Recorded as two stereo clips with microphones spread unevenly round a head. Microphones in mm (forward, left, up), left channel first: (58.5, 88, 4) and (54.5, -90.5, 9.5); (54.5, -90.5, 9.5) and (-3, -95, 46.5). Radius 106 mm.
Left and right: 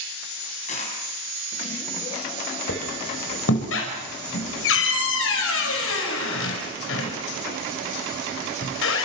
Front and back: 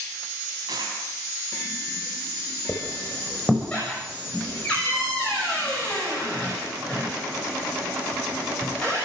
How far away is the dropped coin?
About 7 m.